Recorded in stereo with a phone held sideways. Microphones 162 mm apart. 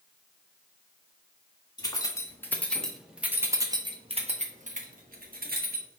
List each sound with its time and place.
1.8 s keys jangling: 25° left (ahead or behind), 1.5 m; by 5.9 s 70° right (ahead or behind), 1.6 m